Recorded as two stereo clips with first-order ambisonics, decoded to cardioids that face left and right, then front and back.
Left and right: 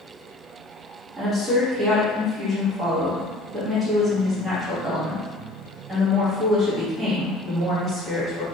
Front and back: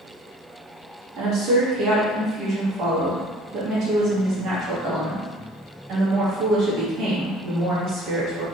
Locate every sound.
1.2 s a woman speaking: 160° right, 1.4 m